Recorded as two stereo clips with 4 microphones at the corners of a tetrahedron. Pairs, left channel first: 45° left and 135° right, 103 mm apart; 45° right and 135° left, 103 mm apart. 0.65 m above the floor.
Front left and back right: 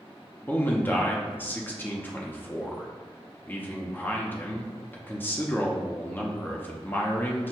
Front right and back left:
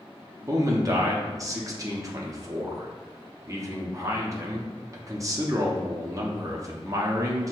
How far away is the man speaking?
About 0.7 m.